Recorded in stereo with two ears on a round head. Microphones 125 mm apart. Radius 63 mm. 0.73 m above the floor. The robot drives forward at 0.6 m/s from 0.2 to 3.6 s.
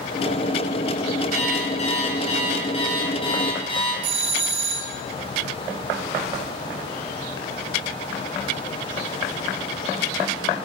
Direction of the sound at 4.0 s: 45° right (ahead or behind).